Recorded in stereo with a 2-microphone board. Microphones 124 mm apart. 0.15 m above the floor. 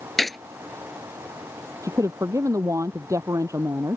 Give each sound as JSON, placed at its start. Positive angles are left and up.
{"t": 0.2, "sound": "a gunshot", "side_deg": 0}
{"t": 1.8, "sound": "a woman speaking", "side_deg": -25}